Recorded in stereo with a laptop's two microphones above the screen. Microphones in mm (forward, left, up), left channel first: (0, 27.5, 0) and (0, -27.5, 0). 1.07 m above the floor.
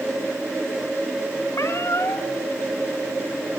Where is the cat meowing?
60° left (ahead or behind), 2 m.